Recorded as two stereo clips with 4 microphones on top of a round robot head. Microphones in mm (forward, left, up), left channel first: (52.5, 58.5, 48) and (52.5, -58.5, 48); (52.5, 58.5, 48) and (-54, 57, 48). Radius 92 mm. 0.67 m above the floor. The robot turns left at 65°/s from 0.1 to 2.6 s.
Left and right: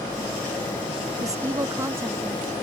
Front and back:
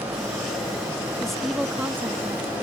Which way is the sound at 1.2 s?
75° right.